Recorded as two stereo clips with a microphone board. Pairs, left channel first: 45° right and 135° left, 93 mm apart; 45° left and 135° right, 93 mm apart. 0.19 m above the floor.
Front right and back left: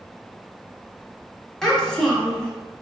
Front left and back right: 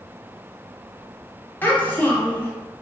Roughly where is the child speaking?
Ahead left.